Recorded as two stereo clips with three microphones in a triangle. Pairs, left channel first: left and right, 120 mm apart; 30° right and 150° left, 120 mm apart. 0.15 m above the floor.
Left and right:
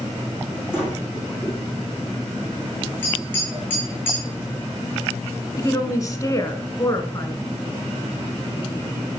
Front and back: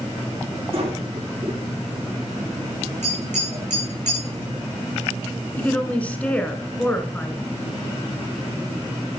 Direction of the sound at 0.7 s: 175° right.